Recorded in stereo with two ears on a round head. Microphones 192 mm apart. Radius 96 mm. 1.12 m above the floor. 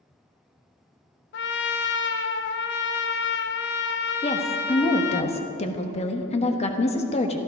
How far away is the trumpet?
About 0.7 m.